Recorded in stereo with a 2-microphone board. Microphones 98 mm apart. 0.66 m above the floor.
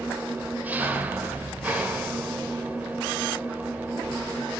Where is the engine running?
20° right (ahead or behind), 2 m.